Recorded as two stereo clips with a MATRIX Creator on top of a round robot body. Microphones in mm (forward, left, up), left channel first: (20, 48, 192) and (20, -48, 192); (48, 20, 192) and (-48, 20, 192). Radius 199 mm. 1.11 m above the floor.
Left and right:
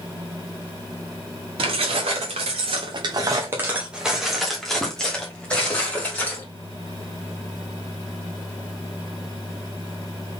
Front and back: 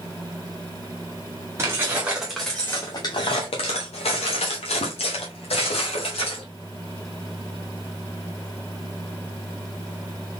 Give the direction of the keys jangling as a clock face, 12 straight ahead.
4 o'clock.